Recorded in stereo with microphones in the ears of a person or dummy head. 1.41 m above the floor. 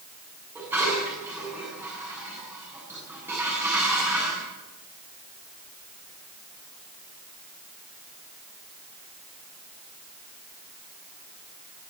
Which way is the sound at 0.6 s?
5° right (ahead or behind).